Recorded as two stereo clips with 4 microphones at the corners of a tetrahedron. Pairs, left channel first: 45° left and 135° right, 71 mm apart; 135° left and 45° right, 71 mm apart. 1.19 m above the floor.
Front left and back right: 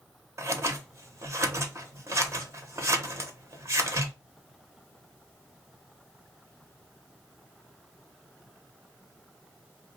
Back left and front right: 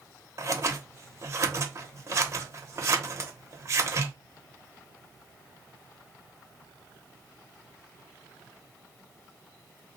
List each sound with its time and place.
0.4 s scissors: 90° right, 0.6 m